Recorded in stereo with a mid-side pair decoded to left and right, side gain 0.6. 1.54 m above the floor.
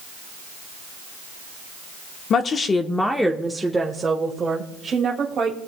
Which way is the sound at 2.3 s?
45° left.